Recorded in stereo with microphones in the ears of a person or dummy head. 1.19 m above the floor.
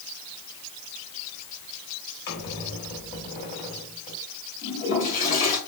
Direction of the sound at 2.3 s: 50° left (ahead or behind).